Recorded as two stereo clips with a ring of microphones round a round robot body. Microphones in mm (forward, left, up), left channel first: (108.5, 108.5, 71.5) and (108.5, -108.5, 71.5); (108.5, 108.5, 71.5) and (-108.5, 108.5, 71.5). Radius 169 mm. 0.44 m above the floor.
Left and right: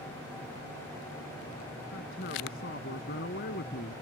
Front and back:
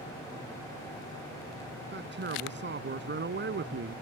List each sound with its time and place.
1.9 s a man speaking: 145° left